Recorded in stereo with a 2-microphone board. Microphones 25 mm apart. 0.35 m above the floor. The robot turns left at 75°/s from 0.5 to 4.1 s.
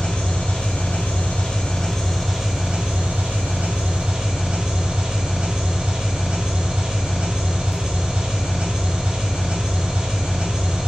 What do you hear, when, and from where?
0.0 s an engine running: 130° left, 1.5 m; by 10.9 s 140° right, 1.5 m